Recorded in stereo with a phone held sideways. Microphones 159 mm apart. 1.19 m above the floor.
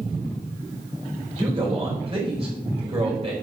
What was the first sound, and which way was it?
A man speaking, 40° right (ahead or behind).